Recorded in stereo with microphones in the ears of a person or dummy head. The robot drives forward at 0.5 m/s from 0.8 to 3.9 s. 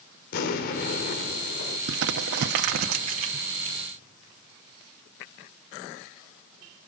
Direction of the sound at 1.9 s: 75° right (ahead or behind).